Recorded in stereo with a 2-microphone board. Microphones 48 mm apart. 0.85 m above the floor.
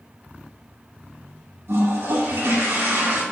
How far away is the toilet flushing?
About 1.9 m.